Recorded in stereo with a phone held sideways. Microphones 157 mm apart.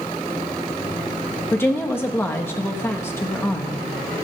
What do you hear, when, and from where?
1.5 s a woman speaking: 15° left (ahead or behind), 1.2 m